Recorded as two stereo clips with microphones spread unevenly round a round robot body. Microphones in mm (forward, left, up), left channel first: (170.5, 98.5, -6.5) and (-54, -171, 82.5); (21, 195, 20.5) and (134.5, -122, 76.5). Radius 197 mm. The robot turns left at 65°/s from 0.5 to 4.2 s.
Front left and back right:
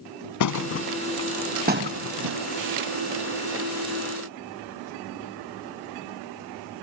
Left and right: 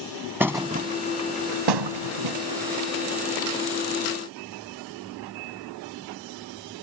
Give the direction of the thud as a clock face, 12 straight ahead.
11 o'clock.